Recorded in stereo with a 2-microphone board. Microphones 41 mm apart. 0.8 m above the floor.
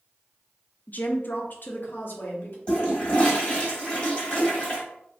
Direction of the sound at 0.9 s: 40° left (ahead or behind).